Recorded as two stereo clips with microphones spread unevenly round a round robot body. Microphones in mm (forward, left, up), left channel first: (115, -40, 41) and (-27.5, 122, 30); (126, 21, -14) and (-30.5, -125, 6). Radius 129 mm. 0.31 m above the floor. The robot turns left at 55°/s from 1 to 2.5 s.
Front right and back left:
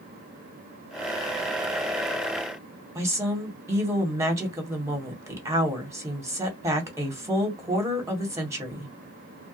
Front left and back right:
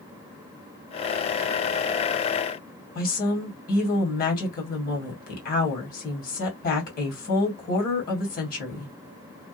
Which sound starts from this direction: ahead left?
A woman speaking, at 3.0 s.